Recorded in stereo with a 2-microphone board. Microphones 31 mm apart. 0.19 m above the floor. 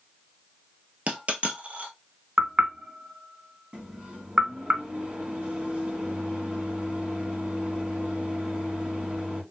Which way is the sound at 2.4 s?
40° right (ahead or behind).